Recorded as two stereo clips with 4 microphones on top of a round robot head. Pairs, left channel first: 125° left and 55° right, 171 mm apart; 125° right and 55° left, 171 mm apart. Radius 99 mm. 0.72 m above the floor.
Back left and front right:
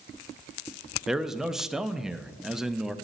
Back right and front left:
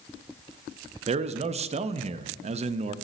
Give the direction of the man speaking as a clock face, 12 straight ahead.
11 o'clock.